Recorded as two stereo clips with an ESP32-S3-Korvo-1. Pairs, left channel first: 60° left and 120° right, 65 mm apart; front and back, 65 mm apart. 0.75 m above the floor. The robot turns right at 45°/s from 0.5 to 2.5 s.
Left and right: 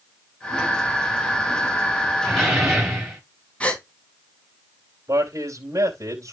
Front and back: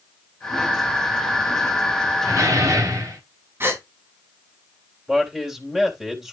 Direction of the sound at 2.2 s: 140° left.